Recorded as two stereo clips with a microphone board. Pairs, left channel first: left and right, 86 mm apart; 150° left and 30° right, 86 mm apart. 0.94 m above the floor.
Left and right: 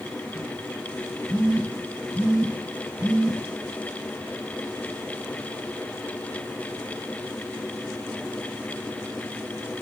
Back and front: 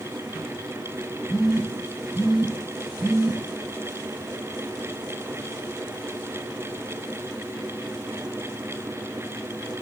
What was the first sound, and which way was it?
A phone buzzing, 70° right.